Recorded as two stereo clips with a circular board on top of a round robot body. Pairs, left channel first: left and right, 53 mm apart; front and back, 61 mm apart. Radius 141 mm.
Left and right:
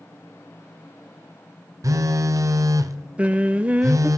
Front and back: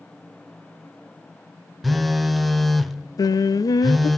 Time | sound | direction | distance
1.8 | a phone buzzing | 90° right | 0.9 m
3.2 | singing | 25° right | 0.6 m